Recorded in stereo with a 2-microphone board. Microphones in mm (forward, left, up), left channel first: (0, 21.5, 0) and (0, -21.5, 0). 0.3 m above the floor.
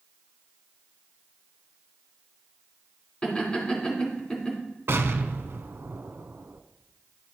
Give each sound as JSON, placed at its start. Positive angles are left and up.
{"t": 3.2, "sound": "laughter", "side_deg": 20, "distance_m": 3.0}
{"t": 4.9, "sound": "an explosion", "side_deg": -75, "distance_m": 0.6}